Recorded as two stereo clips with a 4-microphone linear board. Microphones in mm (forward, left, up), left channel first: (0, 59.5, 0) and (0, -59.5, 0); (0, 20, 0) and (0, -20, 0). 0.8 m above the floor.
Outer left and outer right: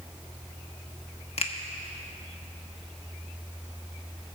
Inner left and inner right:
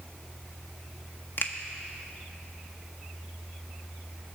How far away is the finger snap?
About 1.0 m.